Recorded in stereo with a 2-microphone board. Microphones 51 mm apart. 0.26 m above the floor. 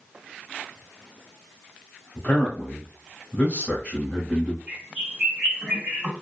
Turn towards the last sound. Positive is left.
turn(degrees=-25)  # may be behind; listen again after turning